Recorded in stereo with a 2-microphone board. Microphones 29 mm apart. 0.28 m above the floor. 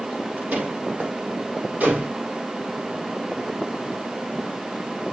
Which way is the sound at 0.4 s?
70° right (ahead or behind).